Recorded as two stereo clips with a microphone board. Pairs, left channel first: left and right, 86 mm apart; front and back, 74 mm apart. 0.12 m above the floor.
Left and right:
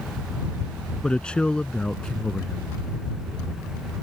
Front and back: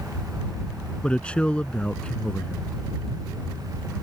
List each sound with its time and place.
1.0 s a man speaking: 35° left